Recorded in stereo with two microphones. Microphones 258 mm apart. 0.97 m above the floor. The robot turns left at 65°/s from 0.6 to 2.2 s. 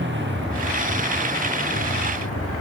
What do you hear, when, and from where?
0.0 s a motorcycle: 135° right; by 2.6 s 120° left